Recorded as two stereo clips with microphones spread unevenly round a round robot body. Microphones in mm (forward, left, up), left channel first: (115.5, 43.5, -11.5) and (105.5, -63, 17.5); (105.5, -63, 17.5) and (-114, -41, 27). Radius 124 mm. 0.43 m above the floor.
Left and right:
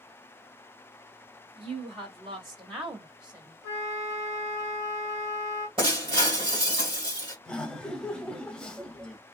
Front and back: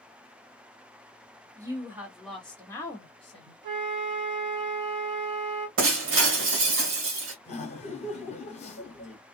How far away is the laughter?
About 1.0 m.